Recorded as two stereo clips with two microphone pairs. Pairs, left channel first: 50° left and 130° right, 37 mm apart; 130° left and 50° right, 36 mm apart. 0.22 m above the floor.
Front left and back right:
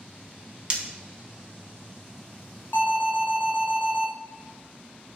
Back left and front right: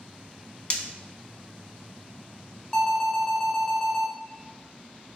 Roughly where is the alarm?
Ahead left.